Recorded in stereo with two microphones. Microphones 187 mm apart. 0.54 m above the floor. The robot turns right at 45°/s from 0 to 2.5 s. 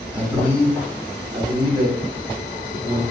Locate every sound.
0.1 s a man speaking: 5° right (ahead or behind), 0.9 m; by 3.0 s 25° right (ahead or behind), 0.9 m